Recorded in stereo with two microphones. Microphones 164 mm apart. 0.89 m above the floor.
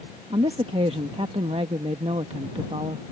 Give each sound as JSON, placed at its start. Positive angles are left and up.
{"t": 0.3, "sound": "a woman speaking", "side_deg": -35}